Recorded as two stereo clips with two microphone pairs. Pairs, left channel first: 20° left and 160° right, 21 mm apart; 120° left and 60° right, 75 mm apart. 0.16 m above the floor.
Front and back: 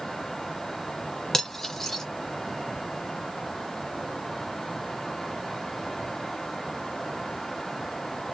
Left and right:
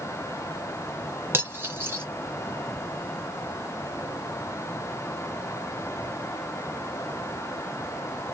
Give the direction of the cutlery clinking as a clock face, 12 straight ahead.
1 o'clock.